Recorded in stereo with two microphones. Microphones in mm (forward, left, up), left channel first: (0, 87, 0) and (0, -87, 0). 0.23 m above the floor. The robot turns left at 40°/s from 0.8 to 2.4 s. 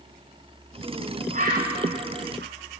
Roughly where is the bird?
Right.